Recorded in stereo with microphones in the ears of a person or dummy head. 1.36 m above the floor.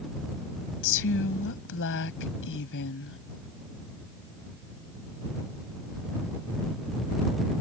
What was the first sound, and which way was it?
A woman speaking, 60° left (ahead or behind).